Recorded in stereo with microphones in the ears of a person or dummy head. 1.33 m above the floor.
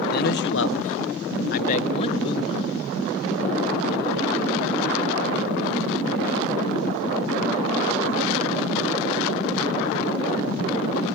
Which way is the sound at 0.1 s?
50° left (ahead or behind).